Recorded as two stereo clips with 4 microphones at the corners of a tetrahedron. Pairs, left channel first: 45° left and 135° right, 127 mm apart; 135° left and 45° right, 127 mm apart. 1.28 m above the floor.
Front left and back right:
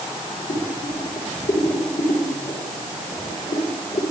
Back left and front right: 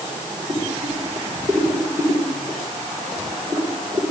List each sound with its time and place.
0.5 s boiling: 35° left, 9.5 m